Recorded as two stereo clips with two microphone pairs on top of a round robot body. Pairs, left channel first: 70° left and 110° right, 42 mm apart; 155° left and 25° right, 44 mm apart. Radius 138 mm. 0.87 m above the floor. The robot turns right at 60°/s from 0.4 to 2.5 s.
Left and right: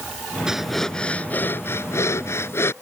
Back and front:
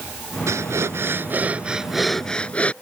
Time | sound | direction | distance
0.5 | breathing | 30° right | ?